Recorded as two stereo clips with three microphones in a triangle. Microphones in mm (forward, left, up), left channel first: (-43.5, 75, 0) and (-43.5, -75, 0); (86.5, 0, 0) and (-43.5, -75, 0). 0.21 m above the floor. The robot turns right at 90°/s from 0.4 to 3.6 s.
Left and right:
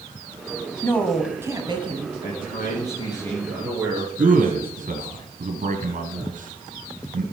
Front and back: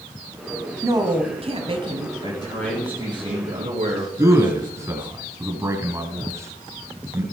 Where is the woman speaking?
150° left, 1.6 m; by 2.1 s 95° right, 1.6 m.